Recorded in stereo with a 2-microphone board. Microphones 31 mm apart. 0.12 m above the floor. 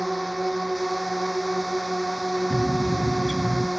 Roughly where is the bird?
Left.